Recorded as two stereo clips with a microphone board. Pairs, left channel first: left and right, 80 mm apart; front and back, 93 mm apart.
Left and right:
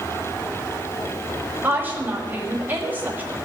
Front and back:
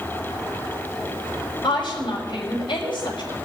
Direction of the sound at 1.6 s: 25° right.